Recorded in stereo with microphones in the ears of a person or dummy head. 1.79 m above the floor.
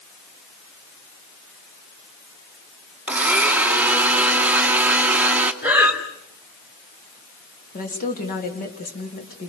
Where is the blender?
10° right (ahead or behind), 1.3 m.